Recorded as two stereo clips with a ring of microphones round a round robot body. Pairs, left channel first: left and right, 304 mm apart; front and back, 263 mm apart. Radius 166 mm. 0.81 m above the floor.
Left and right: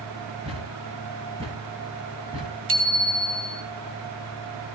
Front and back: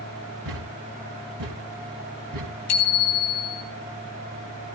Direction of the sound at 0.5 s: 165° right.